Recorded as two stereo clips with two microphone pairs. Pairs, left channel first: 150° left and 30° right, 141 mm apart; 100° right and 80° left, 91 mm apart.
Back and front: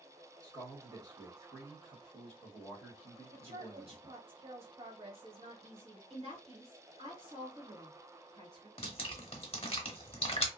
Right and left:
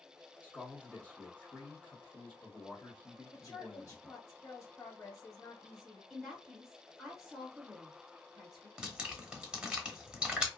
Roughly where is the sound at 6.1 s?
Ahead.